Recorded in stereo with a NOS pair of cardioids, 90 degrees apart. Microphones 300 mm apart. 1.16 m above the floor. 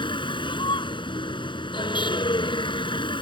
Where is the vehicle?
15° left.